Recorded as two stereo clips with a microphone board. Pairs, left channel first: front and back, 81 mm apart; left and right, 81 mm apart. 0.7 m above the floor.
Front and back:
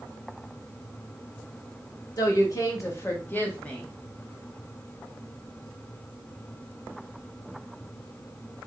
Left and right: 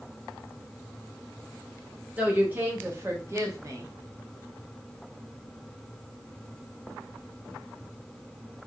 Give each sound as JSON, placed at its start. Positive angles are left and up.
{"t": 2.2, "sound": "a woman speaking", "azimuth_deg": -25, "distance_m": 1.7}